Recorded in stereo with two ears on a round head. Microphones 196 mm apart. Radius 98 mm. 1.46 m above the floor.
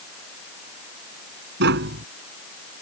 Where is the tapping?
50° right (ahead or behind).